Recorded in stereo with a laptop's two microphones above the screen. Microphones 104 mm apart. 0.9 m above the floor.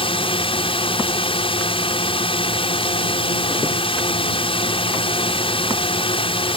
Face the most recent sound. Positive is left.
turn(degrees=60)  # may be behind; listen again after turning